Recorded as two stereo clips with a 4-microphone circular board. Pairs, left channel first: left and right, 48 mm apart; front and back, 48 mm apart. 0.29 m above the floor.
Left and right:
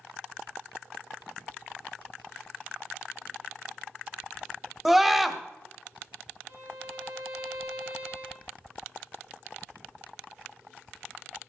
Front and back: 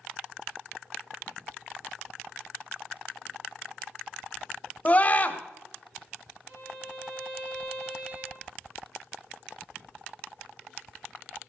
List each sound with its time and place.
4.8 s a scream: 10° right, 1.1 m
6.5 s a violin: 120° right, 5.5 m